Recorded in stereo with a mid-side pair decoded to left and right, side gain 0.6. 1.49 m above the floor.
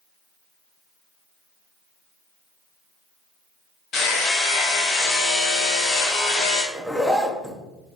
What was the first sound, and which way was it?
Hammering, 55° left.